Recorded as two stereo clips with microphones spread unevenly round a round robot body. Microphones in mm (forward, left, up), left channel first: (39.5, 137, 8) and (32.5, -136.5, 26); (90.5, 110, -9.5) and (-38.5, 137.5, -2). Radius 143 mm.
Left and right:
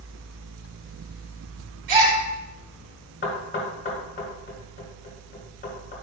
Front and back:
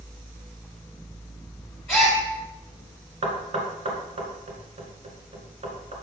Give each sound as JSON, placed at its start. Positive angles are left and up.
{"t": 1.9, "sound": "a gasp", "azimuth_deg": -95, "distance_m": 3.0}
{"t": 3.2, "sound": "knocking", "azimuth_deg": 145, "distance_m": 2.0}